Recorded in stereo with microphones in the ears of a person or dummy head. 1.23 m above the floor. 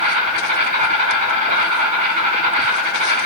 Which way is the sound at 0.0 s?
40° right (ahead or behind).